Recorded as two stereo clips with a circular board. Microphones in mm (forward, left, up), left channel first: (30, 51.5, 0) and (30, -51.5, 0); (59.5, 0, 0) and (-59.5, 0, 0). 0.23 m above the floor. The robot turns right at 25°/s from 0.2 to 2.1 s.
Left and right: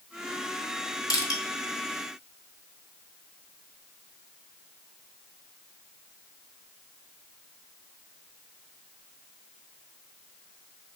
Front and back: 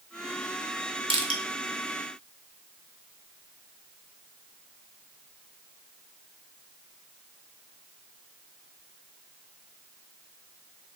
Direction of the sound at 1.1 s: 140° left.